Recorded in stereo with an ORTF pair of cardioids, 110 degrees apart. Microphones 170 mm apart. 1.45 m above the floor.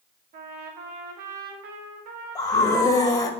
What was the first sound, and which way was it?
A trumpet, 65° right.